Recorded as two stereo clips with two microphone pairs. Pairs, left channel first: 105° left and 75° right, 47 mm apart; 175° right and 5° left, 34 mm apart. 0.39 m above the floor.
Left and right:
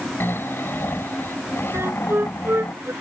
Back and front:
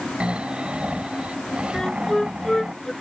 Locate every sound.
0.2 s snoring: 65° left
1.7 s a flute: 100° right